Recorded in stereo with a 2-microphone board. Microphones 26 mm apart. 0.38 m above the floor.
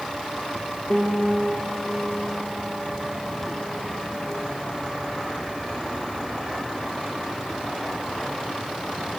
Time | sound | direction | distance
0.9 | a piano | 45° left (ahead or behind) | 8 m